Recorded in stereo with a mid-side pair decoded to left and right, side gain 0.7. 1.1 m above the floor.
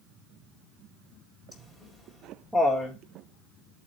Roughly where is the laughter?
Ahead.